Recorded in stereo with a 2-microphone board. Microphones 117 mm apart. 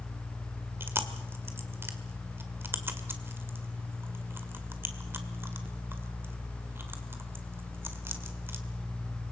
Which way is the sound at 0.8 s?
20° right (ahead or behind).